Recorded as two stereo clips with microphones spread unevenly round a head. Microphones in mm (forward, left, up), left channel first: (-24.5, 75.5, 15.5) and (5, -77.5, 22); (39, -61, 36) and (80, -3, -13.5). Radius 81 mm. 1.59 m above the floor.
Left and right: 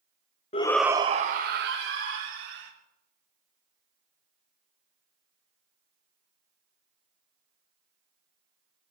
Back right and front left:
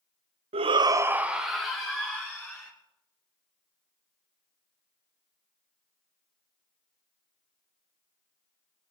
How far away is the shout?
About 0.5 m.